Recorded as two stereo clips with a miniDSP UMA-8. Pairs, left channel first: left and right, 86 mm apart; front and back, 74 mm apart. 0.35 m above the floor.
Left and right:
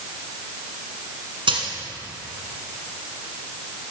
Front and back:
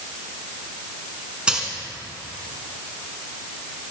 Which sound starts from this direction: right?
A dropped coin, at 1.5 s.